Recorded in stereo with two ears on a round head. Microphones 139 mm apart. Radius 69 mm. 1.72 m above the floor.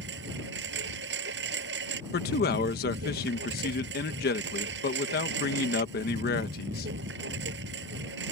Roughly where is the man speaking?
Left.